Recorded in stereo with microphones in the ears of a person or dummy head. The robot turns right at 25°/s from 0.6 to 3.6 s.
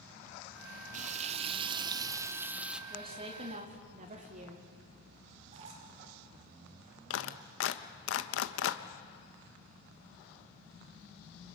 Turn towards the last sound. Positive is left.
turn(degrees=80)